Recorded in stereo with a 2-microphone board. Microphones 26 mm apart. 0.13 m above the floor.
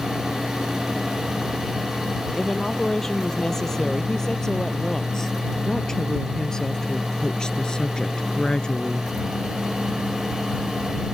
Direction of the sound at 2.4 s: 15° left (ahead or behind).